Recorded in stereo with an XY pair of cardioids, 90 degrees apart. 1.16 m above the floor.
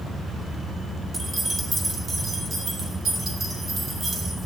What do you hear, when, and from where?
1.1 s keys jangling: 30° right, 2 m; by 4.5 s 70° right, 5 m